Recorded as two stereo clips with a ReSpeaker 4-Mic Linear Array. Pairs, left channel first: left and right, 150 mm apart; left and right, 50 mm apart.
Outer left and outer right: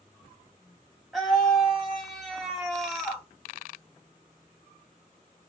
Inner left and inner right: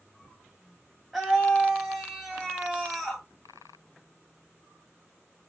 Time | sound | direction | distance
1.1 | a scream | centre (ahead or behind) | 1.0 m